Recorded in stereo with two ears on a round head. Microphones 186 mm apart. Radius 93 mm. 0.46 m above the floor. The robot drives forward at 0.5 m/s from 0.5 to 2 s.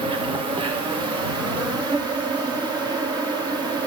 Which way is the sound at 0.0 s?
25° right (ahead or behind).